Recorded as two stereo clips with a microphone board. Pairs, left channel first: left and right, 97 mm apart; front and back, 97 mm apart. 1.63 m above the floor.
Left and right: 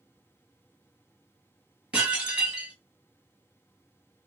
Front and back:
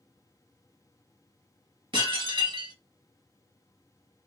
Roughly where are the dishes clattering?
Behind.